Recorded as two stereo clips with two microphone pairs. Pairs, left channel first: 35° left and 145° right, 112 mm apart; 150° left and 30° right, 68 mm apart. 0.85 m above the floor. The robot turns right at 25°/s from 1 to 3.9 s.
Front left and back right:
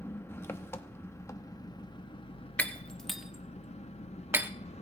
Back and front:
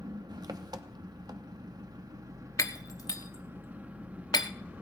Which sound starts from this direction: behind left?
Breaking glass, at 2.6 s.